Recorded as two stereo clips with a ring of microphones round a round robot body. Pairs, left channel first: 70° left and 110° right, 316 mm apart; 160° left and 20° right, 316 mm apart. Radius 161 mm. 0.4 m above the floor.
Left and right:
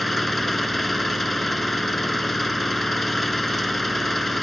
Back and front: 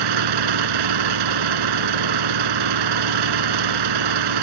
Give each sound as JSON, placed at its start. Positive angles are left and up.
{"t": 0.0, "sound": "an engine running", "azimuth_deg": -20}